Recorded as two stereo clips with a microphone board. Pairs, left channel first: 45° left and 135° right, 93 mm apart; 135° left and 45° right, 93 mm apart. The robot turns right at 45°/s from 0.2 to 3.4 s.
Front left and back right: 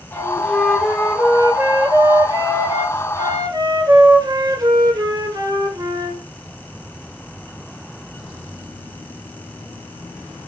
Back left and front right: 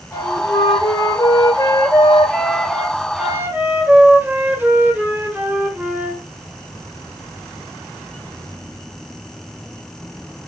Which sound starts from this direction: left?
A flute, at 0.1 s.